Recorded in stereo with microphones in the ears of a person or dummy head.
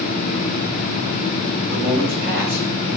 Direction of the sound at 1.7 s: 40° right (ahead or behind).